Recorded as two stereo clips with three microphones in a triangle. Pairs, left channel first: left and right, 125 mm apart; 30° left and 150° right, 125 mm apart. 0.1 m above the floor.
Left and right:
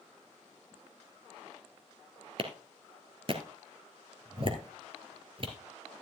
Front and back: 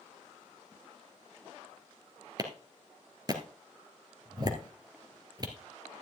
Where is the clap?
105° right, 1.9 m.